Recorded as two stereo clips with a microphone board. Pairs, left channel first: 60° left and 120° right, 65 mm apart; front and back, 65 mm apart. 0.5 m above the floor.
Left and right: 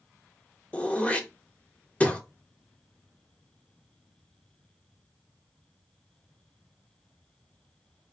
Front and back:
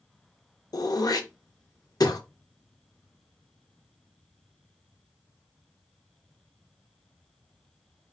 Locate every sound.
0.7 s throat clearing: 10° right, 0.5 m